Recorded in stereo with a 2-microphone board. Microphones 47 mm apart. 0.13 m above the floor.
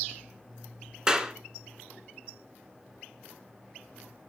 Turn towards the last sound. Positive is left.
turn(degrees=-20)  # may be behind; listen again after turning